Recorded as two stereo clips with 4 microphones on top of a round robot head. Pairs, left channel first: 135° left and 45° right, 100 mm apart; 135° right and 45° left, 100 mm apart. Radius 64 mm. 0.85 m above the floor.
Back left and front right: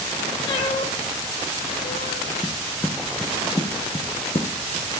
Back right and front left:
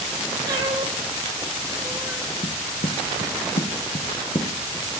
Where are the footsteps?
140° right, 2 m; by 5.0 s 165° left, 2 m.